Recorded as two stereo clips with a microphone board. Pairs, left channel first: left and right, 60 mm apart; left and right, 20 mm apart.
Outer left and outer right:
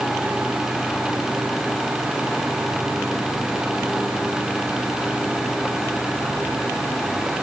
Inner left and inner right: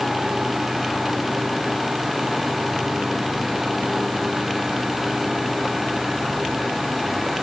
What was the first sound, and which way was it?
Only background noise.